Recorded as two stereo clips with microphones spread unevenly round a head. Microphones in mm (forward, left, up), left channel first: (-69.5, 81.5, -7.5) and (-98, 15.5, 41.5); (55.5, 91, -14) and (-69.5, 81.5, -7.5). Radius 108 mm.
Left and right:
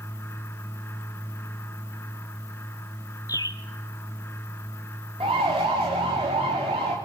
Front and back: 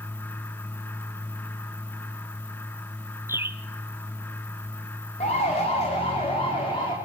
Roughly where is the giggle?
No giggle in this recording.